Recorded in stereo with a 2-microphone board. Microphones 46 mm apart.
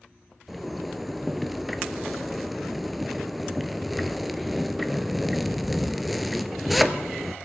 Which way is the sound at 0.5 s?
Centre (ahead or behind).